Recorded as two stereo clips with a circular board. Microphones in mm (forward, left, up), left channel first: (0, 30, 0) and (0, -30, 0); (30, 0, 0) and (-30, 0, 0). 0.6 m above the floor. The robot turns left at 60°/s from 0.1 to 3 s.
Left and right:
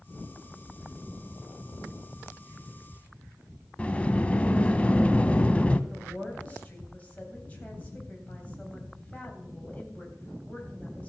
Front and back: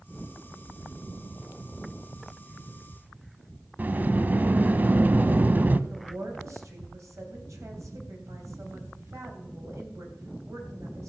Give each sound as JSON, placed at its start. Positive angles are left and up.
{"t": 3.8, "sound": "a sliding door", "azimuth_deg": 145, "distance_m": 0.5}
{"t": 5.9, "sound": "a woman speaking", "azimuth_deg": 155, "distance_m": 3.0}